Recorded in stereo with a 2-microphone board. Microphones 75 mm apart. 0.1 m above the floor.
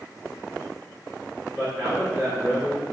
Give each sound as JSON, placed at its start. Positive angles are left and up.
{"t": 1.6, "sound": "a man speaking", "side_deg": -30, "distance_m": 1.4}